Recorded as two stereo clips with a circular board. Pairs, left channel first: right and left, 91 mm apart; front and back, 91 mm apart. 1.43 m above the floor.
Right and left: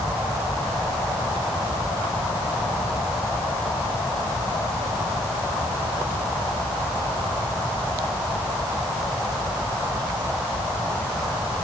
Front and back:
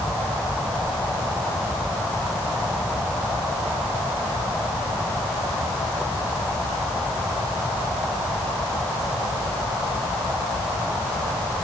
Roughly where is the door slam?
I don't hear a door slam.